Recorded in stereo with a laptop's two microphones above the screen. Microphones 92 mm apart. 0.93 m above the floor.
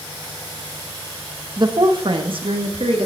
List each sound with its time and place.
1.6 s a woman speaking: 45° right (ahead or behind), 0.9 m; by 3.1 s 70° right (ahead or behind), 2.0 m